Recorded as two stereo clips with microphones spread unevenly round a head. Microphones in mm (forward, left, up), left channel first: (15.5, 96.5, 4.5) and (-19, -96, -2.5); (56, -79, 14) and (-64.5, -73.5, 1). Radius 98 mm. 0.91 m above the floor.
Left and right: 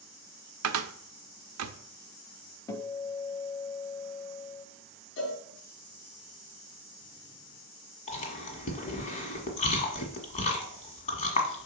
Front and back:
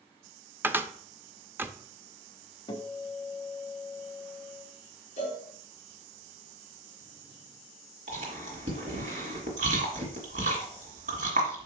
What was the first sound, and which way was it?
A cupboard door, 105° right.